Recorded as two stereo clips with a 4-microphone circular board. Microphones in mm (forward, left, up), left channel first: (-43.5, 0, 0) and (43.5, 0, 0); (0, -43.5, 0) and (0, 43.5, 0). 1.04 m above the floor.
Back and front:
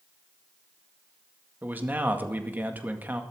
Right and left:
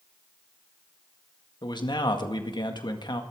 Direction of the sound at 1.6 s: 65° right.